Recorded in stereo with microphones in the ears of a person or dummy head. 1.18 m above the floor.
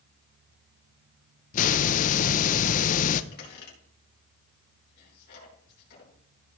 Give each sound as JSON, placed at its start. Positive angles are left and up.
{"t": 1.5, "sound": "a hiss", "side_deg": 45, "distance_m": 0.6}
{"t": 3.3, "sound": "a squeak", "side_deg": 60, "distance_m": 4.5}